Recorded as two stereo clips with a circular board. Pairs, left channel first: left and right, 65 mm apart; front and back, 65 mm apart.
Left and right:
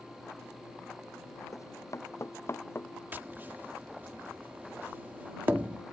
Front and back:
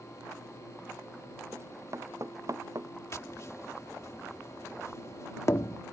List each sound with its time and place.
1.5 s running footsteps: 130° left; by 2.9 s 145° left
3.1 s tapping: 35° right